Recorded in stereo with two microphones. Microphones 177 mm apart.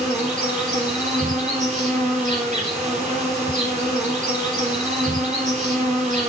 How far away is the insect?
About 4 m.